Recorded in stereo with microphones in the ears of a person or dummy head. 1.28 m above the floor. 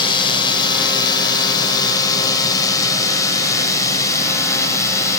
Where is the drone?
25° left (ahead or behind); by 5.2 s 15° left (ahead or behind).